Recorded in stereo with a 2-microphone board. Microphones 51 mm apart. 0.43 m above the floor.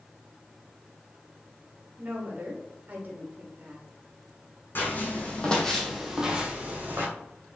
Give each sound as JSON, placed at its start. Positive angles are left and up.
{"t": 2.0, "sound": "a woman speaking", "side_deg": -35, "distance_m": 1.1}
{"t": 4.8, "sound": "footsteps", "side_deg": 45, "distance_m": 1.4}